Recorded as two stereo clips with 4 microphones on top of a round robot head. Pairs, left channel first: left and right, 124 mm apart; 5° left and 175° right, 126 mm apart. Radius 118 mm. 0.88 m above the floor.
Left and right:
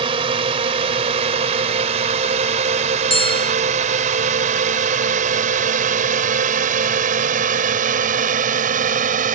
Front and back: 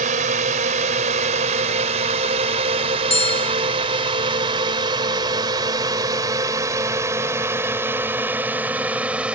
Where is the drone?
145° right; by 9.4 s 90° right.